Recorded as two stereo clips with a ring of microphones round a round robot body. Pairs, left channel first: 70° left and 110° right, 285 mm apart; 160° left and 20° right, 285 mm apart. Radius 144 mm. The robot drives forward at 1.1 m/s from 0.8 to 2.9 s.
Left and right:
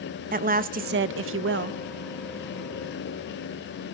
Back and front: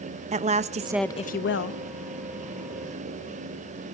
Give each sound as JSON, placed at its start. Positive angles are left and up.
{"t": 0.3, "sound": "a woman speaking", "azimuth_deg": -75, "distance_m": 0.5}